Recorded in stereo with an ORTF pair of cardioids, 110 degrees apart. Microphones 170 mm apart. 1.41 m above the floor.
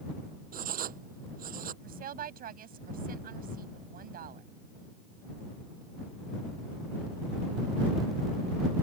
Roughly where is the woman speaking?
Ahead right.